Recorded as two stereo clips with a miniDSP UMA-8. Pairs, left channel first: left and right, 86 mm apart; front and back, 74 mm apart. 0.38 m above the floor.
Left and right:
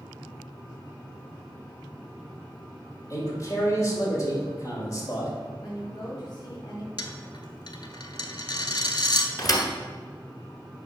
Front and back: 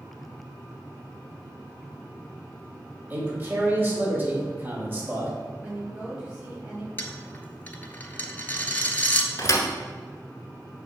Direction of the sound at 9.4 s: 45° left.